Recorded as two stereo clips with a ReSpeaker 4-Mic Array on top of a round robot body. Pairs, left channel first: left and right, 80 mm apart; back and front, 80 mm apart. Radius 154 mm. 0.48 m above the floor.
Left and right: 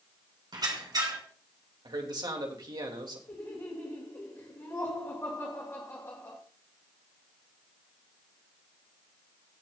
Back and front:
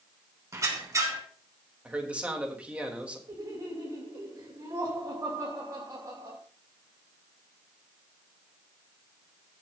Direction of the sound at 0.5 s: 55° right.